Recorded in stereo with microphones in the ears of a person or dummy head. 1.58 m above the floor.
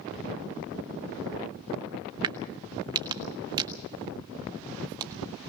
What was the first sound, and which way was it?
A crack, 25° right (ahead or behind).